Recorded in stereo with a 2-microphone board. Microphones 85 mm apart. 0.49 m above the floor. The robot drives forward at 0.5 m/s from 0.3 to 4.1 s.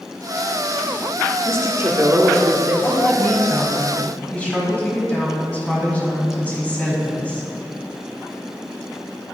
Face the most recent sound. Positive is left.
turn(degrees=15)  # may be behind; listen again after turning